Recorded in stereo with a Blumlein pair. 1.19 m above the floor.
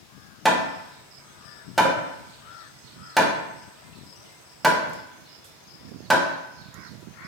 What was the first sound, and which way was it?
Hammering, 5° right.